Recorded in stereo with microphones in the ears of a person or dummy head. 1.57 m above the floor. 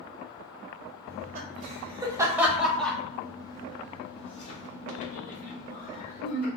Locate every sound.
1.1 s laughter: 45° right (ahead or behind), 1.2 m; by 6.5 s 55° left (ahead or behind), 2.5 m